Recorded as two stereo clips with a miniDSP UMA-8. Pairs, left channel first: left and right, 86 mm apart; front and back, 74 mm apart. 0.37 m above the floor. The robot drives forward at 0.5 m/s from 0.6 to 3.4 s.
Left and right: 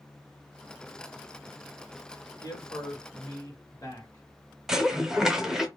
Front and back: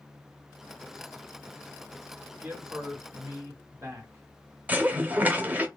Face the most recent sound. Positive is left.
turn(degrees=-165)